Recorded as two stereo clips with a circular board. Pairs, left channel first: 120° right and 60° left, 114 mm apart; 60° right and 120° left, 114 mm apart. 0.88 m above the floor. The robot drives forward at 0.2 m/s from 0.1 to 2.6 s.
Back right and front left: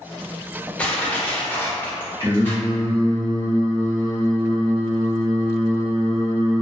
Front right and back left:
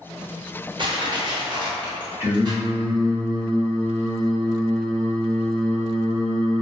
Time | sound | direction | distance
0.8 | crushing | 165° left | 0.6 m
2.2 | singing | 70° left | 1.1 m